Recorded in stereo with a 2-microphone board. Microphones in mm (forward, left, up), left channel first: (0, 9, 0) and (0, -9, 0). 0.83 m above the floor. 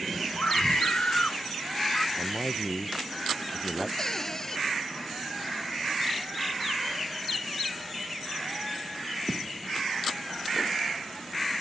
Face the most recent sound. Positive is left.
turn(degrees=25)  # may be behind; listen again after turning